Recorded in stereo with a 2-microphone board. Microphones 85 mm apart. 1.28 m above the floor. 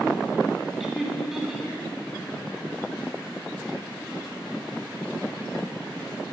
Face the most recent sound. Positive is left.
turn(degrees=-5)  # may be behind; listen again after turning